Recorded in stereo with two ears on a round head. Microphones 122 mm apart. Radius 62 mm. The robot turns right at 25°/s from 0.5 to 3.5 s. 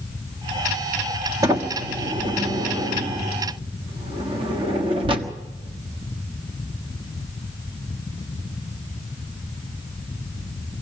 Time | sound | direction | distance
1.4 | a sliding door | 25° right (ahead or behind) | 1.4 m